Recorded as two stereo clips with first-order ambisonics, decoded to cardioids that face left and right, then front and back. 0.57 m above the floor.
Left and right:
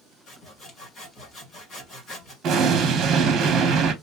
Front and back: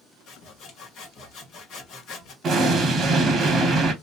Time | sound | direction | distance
0.3 | sawing | 35° left | 2.0 m
2.4 | an explosion | 125° right | 1.0 m